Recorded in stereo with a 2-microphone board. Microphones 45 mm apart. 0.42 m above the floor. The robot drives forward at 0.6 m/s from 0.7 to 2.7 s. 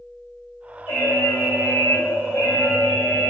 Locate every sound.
0.9 s an alarm: 65° left (ahead or behind), 2.5 m; by 3.3 s 55° left (ahead or behind), 3 m